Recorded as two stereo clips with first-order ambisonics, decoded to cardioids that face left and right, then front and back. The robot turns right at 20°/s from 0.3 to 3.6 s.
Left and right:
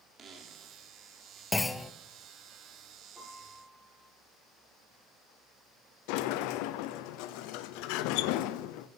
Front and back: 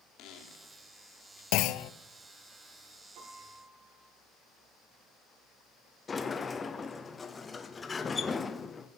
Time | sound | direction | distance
0.2 | a squeak | 30° right | 2 m
1.5 | a clunk | 10° left | 0.5 m
3.1 | a piano | 175° left | 5.5 m
6.1 | a sliding door | 75° left | 0.8 m